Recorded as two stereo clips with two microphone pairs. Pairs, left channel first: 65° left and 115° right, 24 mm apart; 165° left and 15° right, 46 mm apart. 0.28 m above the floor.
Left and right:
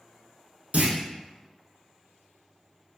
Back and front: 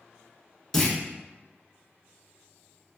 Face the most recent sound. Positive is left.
turn(degrees=-115)